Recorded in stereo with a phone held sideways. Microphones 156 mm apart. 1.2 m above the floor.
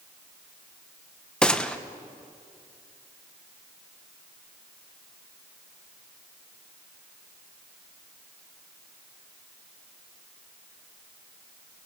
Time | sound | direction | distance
1.4 | a gunshot | 5° left (ahead or behind) | 1.0 m